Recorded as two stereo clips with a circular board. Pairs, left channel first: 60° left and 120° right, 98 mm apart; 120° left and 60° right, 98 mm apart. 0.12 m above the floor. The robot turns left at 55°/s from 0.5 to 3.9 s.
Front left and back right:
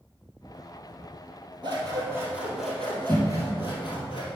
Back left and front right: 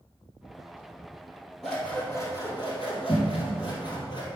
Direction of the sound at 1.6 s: 150° right.